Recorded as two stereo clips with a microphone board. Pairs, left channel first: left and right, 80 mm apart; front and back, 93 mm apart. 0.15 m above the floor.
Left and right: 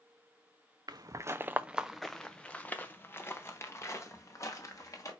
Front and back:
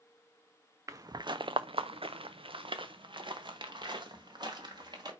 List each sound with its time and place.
0.9 s footsteps: 125° right, 0.6 m; by 5.1 s 140° left, 2 m